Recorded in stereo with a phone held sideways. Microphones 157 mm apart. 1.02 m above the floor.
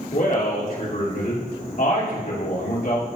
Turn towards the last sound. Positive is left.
turn(degrees=65)  # may be behind; listen again after turning